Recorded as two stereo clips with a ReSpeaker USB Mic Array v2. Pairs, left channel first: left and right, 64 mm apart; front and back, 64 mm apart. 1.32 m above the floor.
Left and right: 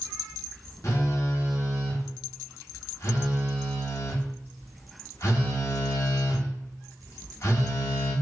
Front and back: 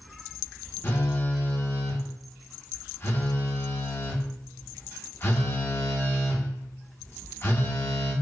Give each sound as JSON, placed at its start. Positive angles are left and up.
{"t": 0.8, "sound": "a phone buzzing", "azimuth_deg": 50, "distance_m": 1.2}